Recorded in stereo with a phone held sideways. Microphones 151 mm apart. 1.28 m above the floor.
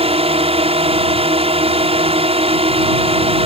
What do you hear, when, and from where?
0.0 s a drone: 40° right (ahead or behind)